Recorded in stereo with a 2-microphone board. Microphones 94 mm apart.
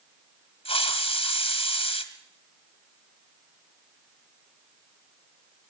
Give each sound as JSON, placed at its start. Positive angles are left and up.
{"t": 0.7, "sound": "a hiss", "side_deg": 85, "distance_m": 1.3}